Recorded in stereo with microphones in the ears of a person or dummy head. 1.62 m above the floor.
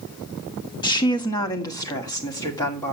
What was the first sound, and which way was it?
A woman speaking, 20° left (ahead or behind).